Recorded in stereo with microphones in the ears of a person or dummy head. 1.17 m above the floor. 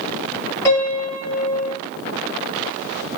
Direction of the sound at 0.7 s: 20° left (ahead or behind).